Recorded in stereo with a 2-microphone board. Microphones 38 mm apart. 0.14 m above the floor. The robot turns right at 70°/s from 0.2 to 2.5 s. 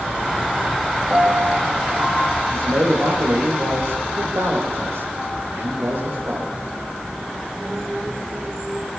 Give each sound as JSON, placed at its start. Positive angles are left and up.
{"t": 1.1, "sound": "a piano", "azimuth_deg": -165, "distance_m": 5.0}
{"t": 2.5, "sound": "a man speaking", "side_deg": -75, "distance_m": 8.5}